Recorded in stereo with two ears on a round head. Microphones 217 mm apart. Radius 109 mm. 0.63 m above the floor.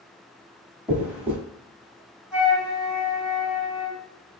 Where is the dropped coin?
5° right (ahead or behind), 1.0 m.